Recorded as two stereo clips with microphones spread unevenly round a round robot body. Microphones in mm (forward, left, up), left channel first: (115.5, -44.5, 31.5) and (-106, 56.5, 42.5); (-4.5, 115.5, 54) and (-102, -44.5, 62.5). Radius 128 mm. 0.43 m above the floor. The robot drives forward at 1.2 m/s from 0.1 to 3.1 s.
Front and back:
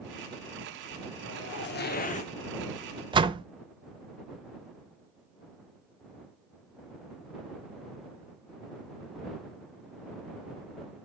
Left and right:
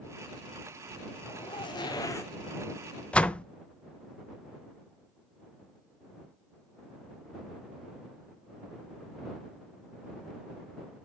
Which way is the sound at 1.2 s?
Straight ahead.